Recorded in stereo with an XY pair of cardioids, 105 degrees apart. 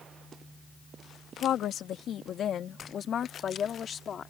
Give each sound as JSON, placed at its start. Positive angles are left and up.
{"t": 1.4, "sound": "a woman speaking", "azimuth_deg": 70}